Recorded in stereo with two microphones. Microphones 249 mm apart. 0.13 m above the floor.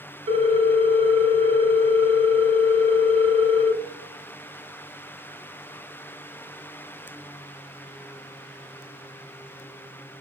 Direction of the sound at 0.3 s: 25° right (ahead or behind).